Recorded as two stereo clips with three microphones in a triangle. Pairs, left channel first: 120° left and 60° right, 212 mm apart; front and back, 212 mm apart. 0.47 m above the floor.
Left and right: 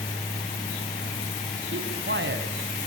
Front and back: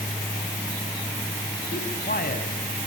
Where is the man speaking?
40° right, 3.5 m.